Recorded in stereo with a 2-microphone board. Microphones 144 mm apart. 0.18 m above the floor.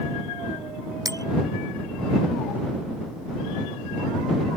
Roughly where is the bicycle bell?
Right.